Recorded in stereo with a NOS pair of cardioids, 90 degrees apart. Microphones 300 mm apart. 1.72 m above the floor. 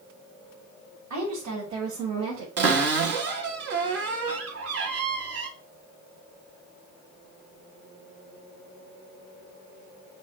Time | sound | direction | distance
1.1 | a woman speaking | 70° right | 1.9 m
2.6 | a cupboard door | 55° right | 1.1 m